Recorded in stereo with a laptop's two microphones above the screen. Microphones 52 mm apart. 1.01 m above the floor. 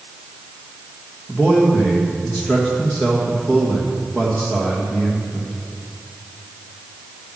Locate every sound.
1.3 s a man speaking: 15° left (ahead or behind), 1.6 m